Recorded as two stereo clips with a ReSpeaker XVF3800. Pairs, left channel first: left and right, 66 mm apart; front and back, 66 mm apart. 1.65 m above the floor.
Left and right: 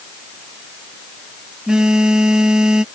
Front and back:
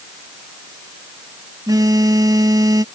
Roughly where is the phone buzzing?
Behind.